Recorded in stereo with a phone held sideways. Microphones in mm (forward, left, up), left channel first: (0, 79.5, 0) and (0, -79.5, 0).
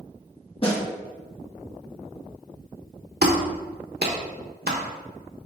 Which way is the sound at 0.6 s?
35° left (ahead or behind).